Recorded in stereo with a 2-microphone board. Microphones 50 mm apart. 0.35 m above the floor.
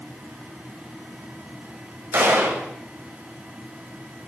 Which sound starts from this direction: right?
A gunshot, at 2.1 s.